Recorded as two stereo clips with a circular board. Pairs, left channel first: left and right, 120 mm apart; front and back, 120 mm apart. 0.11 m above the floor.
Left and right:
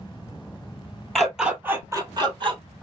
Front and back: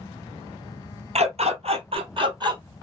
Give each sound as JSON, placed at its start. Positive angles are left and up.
{"t": 1.1, "sound": "a dog barking", "azimuth_deg": 180, "distance_m": 1.2}